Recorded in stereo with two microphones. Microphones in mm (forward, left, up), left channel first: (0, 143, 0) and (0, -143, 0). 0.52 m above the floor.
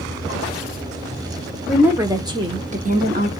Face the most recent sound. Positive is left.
turn(degrees=-35)  # may be behind; listen again after turning